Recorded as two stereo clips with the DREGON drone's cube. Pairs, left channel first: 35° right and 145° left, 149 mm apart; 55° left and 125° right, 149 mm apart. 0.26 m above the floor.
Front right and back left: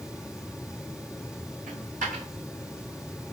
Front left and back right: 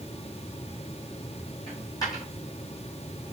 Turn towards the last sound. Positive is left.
turn(degrees=120)